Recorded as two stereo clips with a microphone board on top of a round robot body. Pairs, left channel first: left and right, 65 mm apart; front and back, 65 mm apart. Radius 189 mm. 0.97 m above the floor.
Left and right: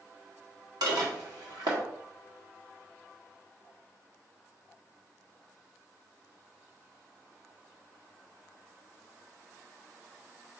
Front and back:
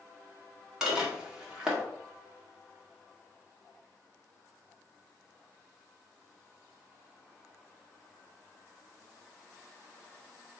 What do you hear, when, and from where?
0.8 s dishes clattering: 95° right, 2 m